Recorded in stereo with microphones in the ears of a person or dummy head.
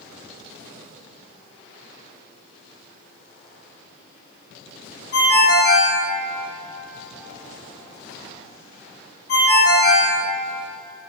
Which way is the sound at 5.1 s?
60° left (ahead or behind).